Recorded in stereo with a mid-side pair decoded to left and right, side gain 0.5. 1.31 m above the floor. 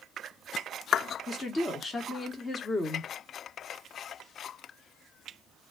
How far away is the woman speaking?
About 1.2 m.